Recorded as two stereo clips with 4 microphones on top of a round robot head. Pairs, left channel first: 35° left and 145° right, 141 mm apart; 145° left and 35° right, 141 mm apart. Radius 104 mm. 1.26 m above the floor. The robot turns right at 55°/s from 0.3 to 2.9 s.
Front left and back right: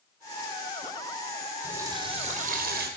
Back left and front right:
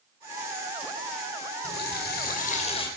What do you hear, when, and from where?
1.6 s a running tap: 135° left, 3.5 m; by 2.9 s 155° right, 3.5 m